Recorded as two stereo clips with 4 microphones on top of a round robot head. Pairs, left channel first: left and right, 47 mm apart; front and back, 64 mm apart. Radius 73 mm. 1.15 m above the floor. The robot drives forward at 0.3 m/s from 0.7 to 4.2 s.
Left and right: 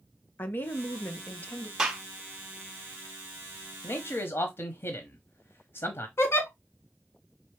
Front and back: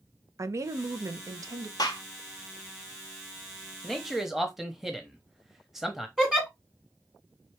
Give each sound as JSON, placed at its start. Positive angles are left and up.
{"t": 0.4, "sound": "a woman speaking", "azimuth_deg": 140, "distance_m": 0.8}
{"t": 1.8, "sound": "a gunshot", "azimuth_deg": -20, "distance_m": 0.6}
{"t": 3.8, "sound": "a man speaking", "azimuth_deg": 85, "distance_m": 0.7}
{"t": 6.2, "sound": "a giggle", "azimuth_deg": 100, "distance_m": 1.5}